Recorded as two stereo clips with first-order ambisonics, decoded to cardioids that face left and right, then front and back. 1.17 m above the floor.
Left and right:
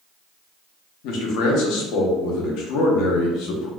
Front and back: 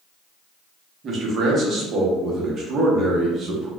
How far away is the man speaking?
About 0.7 m.